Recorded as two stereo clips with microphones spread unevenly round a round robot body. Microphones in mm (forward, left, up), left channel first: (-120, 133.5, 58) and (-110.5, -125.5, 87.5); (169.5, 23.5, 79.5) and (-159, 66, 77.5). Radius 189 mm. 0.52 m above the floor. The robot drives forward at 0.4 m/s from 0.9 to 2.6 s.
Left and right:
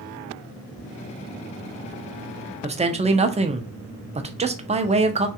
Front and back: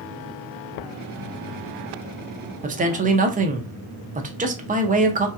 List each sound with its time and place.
2.6 s a man speaking: 145° right, 0.7 m